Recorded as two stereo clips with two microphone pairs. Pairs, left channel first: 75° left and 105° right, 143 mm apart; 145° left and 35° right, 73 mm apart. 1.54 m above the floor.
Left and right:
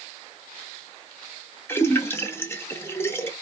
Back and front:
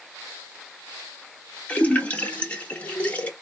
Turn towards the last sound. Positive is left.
turn(degrees=110)